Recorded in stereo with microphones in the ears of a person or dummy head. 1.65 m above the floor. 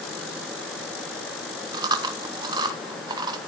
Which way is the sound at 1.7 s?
25° right (ahead or behind).